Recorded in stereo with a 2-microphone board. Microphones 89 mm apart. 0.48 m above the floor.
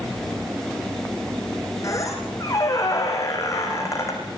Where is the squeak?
35° left (ahead or behind), 6 m.